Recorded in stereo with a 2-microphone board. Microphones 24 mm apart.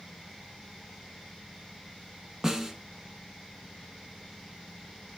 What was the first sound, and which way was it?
A snare drum, 20° right (ahead or behind).